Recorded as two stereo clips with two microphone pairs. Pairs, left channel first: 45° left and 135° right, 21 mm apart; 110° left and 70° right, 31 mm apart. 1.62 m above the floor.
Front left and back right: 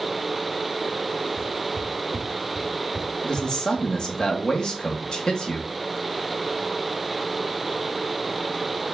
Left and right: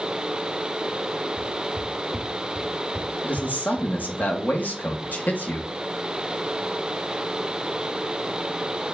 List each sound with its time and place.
1.4 s footsteps: 150° left, 3 m; by 4.2 s 165° right, 1.7 m
3.2 s a man speaking: 95° left, 2.5 m